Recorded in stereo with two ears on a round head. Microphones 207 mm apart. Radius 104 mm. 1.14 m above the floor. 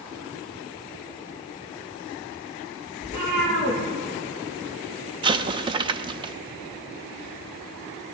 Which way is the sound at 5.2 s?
20° right (ahead or behind).